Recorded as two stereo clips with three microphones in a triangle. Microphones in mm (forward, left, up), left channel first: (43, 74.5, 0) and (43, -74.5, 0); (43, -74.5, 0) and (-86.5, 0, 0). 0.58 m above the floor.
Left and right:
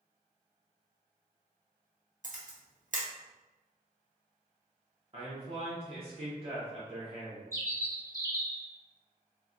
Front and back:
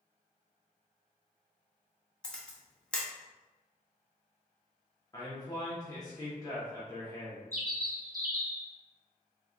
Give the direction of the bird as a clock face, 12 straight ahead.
7 o'clock.